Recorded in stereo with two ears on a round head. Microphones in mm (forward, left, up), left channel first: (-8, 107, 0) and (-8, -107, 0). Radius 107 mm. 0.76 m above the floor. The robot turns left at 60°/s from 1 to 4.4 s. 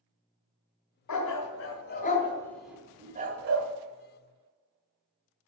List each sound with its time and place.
1.1 s a dog barking: 85° left, 2.5 m; by 3.7 s 60° right (ahead or behind), 2.5 m